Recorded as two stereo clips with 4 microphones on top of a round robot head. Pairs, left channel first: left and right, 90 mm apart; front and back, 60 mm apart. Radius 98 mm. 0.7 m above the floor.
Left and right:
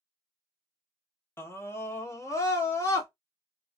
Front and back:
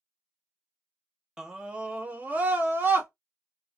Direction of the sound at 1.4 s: 115° left.